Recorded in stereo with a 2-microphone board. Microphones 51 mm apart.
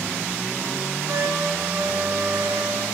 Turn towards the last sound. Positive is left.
turn(degrees=-65)  # may be behind; listen again after turning